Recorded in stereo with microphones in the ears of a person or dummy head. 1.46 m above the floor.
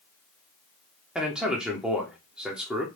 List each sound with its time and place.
1.1 s a man speaking: centre (ahead or behind), 0.6 m